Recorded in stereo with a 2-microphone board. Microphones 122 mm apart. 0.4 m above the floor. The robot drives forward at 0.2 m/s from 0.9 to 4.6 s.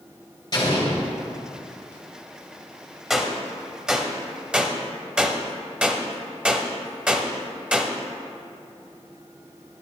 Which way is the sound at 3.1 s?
5° right (ahead or behind).